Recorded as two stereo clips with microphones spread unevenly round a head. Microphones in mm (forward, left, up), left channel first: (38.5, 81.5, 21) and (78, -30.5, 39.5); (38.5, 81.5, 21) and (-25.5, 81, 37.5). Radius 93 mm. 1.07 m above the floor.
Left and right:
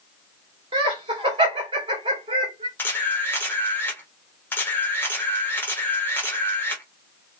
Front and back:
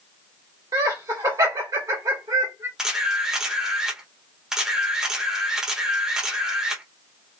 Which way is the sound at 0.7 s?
125° right.